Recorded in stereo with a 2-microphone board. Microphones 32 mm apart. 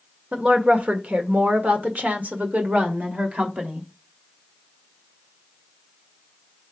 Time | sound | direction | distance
0.3 | a woman speaking | 45° right (ahead or behind) | 1.7 m